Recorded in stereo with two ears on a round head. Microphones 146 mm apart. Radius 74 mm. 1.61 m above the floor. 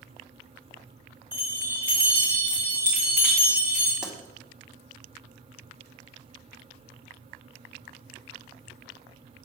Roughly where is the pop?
Centre.